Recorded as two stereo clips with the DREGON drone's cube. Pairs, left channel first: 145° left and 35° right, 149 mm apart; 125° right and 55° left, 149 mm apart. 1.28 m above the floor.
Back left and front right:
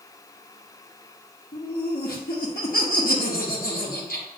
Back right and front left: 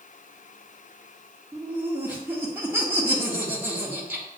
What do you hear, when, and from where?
1.5 s laughter: 130° left, 1.5 m